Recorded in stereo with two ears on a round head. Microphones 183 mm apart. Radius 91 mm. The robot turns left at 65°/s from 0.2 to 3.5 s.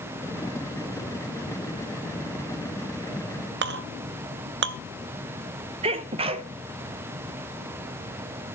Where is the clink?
55° right (ahead or behind), 0.5 m.